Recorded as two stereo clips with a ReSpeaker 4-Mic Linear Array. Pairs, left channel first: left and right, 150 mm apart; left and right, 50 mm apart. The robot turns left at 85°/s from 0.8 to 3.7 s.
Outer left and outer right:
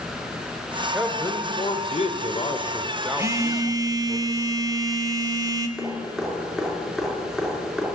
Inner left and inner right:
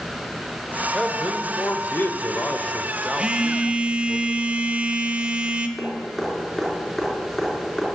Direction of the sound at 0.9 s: Straight behind.